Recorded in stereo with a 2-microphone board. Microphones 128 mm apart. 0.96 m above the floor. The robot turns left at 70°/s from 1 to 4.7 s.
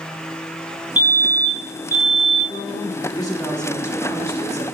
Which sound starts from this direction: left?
A woman speaking, at 2.5 s.